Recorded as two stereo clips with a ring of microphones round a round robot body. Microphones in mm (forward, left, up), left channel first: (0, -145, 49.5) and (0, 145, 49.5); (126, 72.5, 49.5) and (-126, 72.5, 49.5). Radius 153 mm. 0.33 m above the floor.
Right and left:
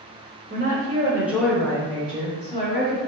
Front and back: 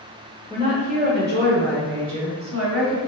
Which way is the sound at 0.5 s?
120° left.